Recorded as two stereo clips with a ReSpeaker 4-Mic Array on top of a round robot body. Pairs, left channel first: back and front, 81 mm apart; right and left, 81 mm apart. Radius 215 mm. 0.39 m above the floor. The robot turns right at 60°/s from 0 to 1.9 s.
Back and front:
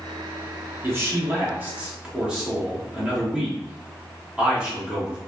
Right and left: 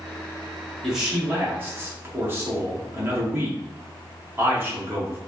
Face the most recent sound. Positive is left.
turn(degrees=65)